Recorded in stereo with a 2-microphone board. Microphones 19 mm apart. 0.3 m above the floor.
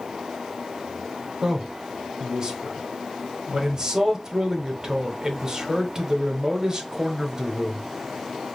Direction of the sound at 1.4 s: 40° right (ahead or behind).